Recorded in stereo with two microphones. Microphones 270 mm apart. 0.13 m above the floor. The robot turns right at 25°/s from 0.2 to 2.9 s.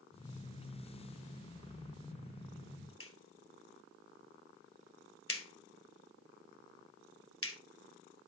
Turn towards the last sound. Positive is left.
turn(degrees=55)  # may be behind; listen again after turning